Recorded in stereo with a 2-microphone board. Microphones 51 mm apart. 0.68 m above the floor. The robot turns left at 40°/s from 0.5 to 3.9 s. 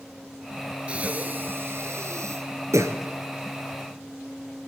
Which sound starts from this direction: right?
Breathing, at 0.9 s.